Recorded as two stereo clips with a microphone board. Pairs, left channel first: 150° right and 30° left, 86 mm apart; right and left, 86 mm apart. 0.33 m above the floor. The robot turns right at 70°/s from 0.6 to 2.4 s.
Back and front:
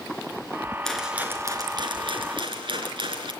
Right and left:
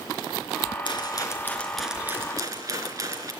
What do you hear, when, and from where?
0.8 s a rattle: 65° right, 4 m; by 3.3 s 45° left, 4 m